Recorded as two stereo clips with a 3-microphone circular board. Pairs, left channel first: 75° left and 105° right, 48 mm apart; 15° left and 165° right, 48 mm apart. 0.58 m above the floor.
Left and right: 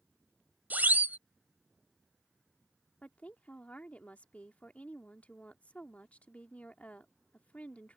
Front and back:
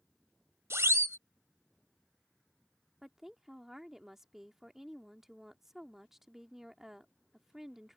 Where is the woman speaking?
115° left.